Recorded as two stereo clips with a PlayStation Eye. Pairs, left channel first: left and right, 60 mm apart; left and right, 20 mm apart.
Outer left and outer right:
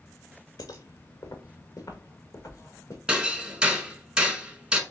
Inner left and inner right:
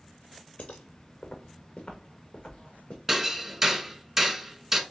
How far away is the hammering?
About 0.8 m.